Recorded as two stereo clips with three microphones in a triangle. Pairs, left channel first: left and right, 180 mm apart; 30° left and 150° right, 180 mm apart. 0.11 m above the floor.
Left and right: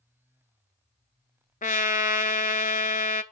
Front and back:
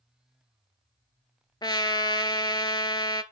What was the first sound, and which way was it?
A trumpet, 85° left.